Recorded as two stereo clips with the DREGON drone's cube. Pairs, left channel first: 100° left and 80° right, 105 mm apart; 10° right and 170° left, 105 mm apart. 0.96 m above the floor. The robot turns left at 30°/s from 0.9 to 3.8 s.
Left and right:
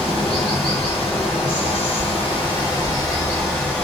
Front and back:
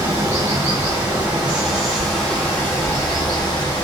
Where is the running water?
115° left, 1.5 m; by 3.8 s 25° left, 1.5 m.